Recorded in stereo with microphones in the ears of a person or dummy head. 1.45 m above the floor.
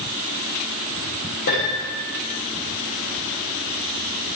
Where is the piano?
65° left (ahead or behind), 8 m.